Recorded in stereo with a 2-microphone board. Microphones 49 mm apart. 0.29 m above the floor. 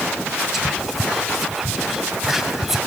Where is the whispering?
5° right (ahead or behind), 1.1 m.